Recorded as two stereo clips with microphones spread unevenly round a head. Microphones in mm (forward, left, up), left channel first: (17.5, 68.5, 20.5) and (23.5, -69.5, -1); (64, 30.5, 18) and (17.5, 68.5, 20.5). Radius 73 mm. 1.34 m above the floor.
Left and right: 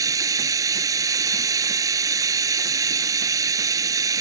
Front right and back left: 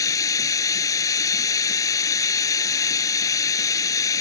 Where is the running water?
20° right.